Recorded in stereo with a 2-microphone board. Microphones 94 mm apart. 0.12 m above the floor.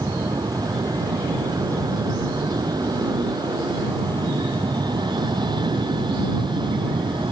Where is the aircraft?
40° right (ahead or behind); by 7.3 s 50° right (ahead or behind).